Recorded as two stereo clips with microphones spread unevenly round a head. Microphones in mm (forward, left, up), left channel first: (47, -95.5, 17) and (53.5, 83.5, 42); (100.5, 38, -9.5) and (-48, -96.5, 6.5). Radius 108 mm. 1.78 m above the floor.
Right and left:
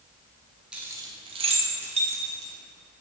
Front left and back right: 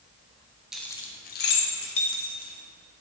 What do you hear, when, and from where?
0.7 s keys jangling: 150° left, 0.8 m; by 2.5 s 40° left, 2 m